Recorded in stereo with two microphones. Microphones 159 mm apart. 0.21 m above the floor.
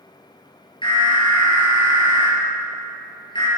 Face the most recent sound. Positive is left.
turn(degrees=30)  # may be behind; listen again after turning